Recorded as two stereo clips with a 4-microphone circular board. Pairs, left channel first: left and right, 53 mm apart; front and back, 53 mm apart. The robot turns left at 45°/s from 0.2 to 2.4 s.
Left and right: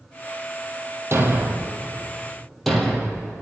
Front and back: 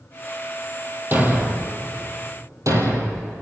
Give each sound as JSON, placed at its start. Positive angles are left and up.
{"t": 1.1, "sound": "a thud", "azimuth_deg": -125, "distance_m": 2.5}